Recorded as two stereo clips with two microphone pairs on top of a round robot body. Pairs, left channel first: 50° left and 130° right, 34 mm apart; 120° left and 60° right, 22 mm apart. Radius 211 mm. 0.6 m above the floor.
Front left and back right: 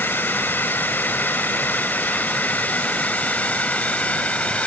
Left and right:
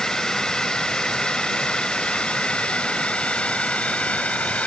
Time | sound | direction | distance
0.0 | a drone | 60° left | ?